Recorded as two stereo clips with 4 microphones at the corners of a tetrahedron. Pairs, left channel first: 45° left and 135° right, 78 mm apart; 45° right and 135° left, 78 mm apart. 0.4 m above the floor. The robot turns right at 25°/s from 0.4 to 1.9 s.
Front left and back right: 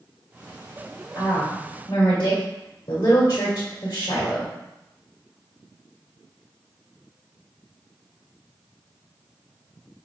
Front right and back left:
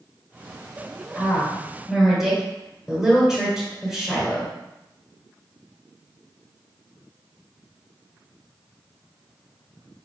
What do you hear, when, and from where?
1.1 s a woman speaking: 35° left, 1.7 m; by 4.5 s 55° left, 1.7 m